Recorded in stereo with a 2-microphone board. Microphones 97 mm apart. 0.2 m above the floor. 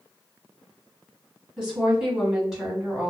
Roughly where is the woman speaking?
Centre.